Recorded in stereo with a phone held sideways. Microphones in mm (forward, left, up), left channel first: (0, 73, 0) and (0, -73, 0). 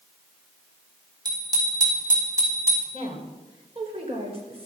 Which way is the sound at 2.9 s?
40° right (ahead or behind).